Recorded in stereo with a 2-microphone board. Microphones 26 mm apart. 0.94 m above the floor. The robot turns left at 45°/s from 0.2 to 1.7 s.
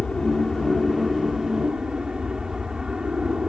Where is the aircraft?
35° left; by 3.5 s 30° right.